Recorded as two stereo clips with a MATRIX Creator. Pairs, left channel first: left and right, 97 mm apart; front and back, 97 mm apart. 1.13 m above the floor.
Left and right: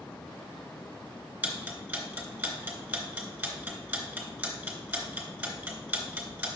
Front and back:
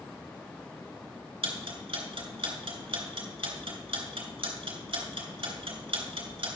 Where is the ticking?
165° right, 3 m.